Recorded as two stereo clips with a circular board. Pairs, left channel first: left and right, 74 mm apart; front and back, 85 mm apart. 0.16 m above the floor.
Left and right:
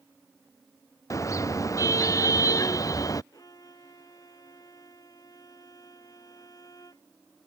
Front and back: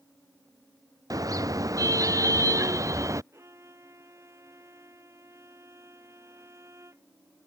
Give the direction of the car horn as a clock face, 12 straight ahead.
8 o'clock.